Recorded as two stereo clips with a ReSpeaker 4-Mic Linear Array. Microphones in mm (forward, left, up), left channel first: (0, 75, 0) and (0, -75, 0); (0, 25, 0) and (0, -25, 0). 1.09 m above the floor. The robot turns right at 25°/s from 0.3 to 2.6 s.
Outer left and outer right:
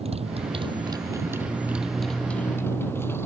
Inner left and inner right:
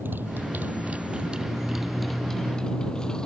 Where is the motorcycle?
40° right; by 3.2 s 15° left.